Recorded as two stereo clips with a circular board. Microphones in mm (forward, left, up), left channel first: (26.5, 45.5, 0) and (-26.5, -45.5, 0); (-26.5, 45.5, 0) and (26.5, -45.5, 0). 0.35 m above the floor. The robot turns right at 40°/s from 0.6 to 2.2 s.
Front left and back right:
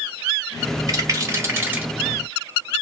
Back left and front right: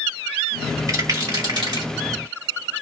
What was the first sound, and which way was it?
A rattle, 95° right.